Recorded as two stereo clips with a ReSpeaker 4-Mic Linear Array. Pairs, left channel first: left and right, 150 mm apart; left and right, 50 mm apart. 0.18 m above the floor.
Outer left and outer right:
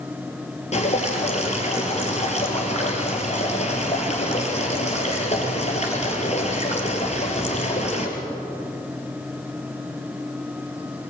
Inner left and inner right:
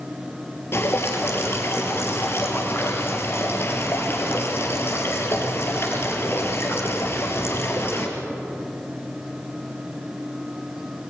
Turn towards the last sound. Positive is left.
turn(degrees=50)  # may be behind; listen again after turning